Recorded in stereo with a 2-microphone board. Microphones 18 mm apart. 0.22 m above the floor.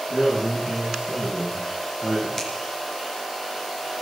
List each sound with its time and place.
0.1 s a man speaking: 45° right (ahead or behind), 9.5 m; by 2.3 s 35° right (ahead or behind), 9 m
2.4 s a finger snap: 25° left (ahead or behind), 3.5 m